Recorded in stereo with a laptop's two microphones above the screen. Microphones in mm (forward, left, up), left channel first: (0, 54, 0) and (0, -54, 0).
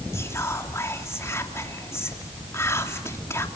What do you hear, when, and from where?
0.1 s whispering: 25° left (ahead or behind), 3 m